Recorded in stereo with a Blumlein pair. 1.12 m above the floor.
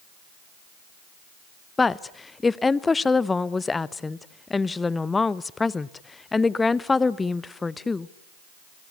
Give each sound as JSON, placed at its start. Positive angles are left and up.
{"t": 1.8, "sound": "a woman speaking", "azimuth_deg": 10, "distance_m": 0.6}